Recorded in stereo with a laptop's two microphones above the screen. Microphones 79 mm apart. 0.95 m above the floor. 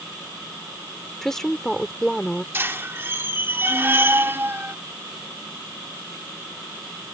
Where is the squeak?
30° right (ahead or behind).